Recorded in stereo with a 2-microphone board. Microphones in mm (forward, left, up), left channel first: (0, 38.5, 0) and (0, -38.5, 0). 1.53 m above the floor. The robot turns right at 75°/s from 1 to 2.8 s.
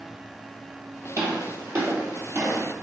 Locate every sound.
1.2 s footsteps: 35° right (ahead or behind), 1.9 m; by 2.7 s 45° right (ahead or behind), 2 m